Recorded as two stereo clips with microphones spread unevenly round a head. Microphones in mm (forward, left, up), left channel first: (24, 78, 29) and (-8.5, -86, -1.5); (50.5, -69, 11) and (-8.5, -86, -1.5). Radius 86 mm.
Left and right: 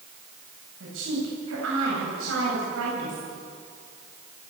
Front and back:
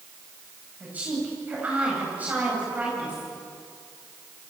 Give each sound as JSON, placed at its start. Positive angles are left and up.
{"t": 0.8, "sound": "a woman speaking", "azimuth_deg": -100, "distance_m": 9.0}